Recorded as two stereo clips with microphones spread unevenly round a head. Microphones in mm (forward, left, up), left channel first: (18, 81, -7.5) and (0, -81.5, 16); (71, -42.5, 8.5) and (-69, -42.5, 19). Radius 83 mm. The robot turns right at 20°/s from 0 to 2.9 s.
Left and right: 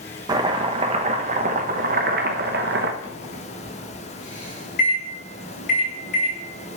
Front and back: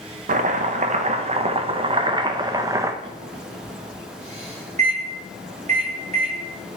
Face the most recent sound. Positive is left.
turn(degrees=125)